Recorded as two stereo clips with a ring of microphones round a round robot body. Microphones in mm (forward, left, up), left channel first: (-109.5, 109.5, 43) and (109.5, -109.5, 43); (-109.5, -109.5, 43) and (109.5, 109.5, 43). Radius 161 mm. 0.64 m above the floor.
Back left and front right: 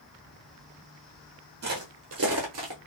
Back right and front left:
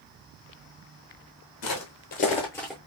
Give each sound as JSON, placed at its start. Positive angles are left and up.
{"t": 1.6, "sound": "footsteps", "azimuth_deg": -100, "distance_m": 1.1}